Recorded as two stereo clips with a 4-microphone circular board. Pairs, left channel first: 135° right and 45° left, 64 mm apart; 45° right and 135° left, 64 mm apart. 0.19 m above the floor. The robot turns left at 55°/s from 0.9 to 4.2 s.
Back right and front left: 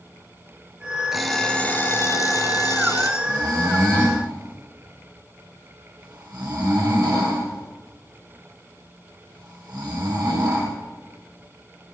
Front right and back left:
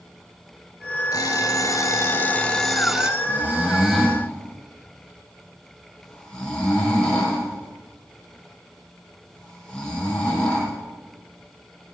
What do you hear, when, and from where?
1.1 s an alarm clock: 40° right, 2 m; by 3.1 s 150° right, 2 m
3.2 s snoring: 85° left, 6 m; by 10.7 s 30° left, 6 m